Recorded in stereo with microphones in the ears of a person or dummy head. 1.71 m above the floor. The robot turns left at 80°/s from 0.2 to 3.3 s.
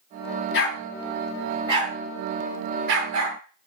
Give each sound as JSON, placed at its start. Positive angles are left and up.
{"t": 0.5, "sound": "a dog barking", "side_deg": 65, "distance_m": 7.5}